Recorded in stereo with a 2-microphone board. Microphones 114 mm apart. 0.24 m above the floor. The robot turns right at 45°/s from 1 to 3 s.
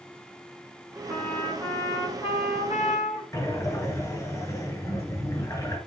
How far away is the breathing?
About 2.5 m.